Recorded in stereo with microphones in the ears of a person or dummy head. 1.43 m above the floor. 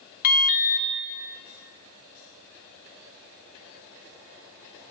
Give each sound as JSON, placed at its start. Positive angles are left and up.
{"t": 0.2, "sound": "an alarm", "side_deg": 45, "distance_m": 0.6}